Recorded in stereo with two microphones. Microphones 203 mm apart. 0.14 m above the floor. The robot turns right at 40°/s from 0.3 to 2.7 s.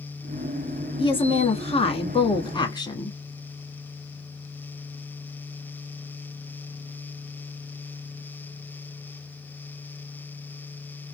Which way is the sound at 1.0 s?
25° left (ahead or behind).